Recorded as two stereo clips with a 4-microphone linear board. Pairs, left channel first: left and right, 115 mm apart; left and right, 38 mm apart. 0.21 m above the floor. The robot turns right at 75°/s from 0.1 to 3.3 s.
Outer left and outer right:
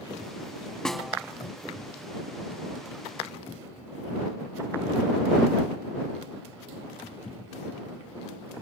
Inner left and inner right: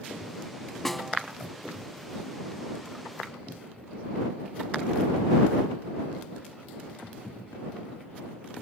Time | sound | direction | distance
0.8 | a snare drum | 5° left (ahead or behind) | ?